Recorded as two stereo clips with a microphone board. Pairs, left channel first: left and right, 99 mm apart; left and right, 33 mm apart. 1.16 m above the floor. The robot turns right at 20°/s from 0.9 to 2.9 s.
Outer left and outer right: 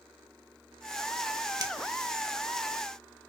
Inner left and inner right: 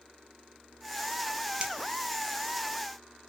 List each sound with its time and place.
1.6 s a finger snap: 40° right (ahead or behind), 0.7 m